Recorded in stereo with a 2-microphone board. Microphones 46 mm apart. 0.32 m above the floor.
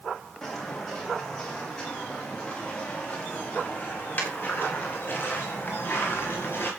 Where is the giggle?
No giggle in this recording.